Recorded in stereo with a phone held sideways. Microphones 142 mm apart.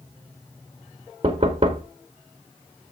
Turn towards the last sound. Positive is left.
turn(degrees=-40)  # may be behind; listen again after turning